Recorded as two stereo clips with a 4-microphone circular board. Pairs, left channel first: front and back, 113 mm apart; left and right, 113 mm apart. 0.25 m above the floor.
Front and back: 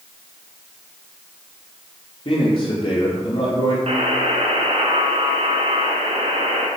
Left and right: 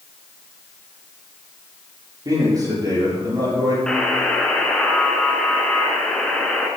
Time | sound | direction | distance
2.2 | a man speaking | 35° right | 6 m
3.9 | a buzzer | 170° left | 2.5 m